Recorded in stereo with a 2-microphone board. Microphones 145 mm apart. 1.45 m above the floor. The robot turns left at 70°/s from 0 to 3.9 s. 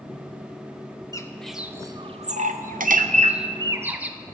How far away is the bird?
About 0.7 m.